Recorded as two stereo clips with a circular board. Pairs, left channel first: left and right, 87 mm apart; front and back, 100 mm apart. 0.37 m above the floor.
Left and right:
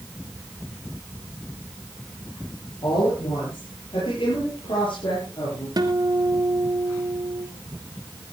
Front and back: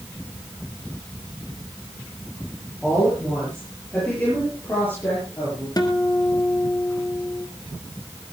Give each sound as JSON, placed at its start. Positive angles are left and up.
{"t": 2.8, "sound": "a woman speaking", "azimuth_deg": 90, "distance_m": 8.5}
{"t": 5.8, "sound": "a guitar", "azimuth_deg": -50, "distance_m": 2.0}